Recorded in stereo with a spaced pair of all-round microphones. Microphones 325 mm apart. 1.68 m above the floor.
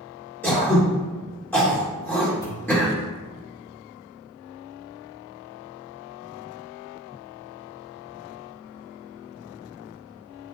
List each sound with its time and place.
0.4 s throat clearing: 5° left (ahead or behind), 3 m
2.4 s a pop: 10° left (ahead or behind), 2.5 m